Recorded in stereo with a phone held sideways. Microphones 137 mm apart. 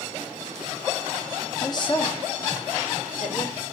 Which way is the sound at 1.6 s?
25° left (ahead or behind).